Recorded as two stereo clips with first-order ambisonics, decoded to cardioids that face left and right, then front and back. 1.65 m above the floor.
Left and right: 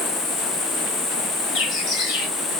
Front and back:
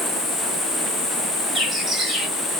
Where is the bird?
100° left, 1.7 m.